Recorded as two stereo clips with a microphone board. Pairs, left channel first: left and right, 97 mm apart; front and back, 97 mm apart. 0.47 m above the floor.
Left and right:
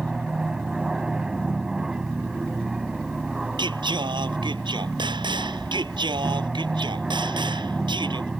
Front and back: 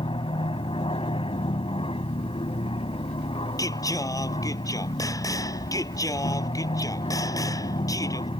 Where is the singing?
55° right.